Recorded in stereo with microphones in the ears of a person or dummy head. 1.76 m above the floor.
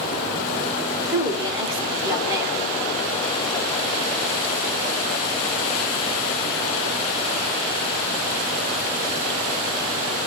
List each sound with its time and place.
1.1 s a woman speaking: 15° right (ahead or behind), 1.5 m